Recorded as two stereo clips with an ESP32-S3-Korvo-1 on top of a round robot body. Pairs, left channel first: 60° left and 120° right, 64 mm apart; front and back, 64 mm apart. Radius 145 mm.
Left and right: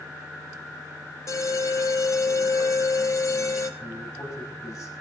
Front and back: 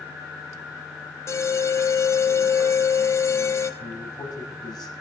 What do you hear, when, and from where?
1.3 s an alarm: 35° left, 2 m
3.8 s a man speaking: 15° left, 5 m